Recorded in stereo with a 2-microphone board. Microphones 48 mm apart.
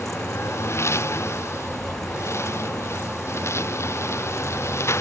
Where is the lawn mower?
70° left (ahead or behind).